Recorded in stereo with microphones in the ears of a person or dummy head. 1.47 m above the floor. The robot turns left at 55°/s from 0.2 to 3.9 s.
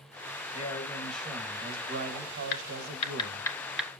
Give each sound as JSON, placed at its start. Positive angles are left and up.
{"t": 0.5, "sound": "a man speaking", "azimuth_deg": 30, "distance_m": 1.8}
{"t": 2.5, "sound": "typing on a keyboard", "side_deg": 65, "distance_m": 1.7}